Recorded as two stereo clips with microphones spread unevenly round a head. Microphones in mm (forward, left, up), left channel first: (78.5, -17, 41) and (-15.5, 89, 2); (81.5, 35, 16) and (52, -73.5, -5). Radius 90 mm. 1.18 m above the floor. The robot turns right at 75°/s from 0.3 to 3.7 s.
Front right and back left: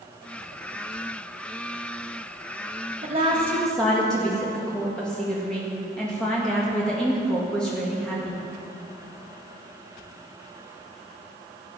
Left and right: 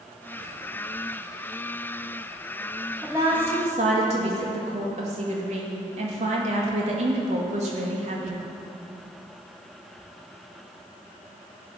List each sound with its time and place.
3.0 s a woman speaking: 170° left, 1.8 m; by 8.4 s 140° right, 1.8 m